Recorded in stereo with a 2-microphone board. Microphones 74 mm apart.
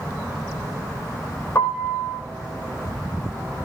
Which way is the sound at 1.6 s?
35° left (ahead or behind).